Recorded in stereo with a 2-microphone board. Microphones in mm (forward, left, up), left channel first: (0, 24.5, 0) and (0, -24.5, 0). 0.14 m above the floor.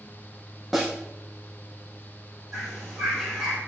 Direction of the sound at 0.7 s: Centre (ahead or behind).